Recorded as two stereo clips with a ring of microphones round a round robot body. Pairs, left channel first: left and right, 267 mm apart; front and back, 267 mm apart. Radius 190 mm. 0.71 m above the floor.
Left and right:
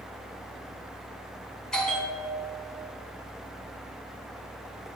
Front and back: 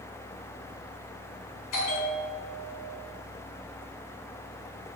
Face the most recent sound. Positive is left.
turn(degrees=5)